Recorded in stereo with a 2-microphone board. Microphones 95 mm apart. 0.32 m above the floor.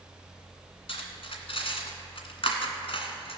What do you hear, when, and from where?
0.9 s cutlery clinking: 70° left (ahead or behind), 1.7 m